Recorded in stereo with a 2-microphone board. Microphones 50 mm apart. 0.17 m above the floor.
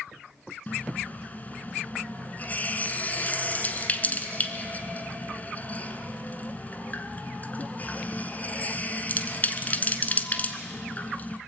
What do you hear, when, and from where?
0.7 s a running tap: 35° left (ahead or behind), 1.2 m